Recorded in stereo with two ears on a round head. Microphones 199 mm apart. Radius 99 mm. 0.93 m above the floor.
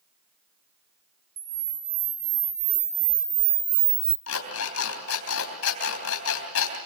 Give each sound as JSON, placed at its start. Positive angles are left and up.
{"t": 1.4, "sound": "a camera shutter", "side_deg": -40, "distance_m": 1.8}
{"t": 4.3, "sound": "an alarm clock", "side_deg": 75, "distance_m": 3.5}